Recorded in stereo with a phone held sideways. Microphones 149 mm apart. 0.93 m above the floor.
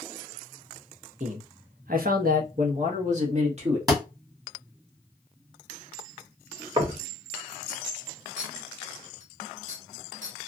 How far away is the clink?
About 1.3 m.